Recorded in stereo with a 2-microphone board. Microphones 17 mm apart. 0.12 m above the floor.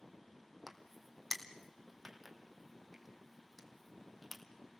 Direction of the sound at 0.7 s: 5° right (ahead or behind).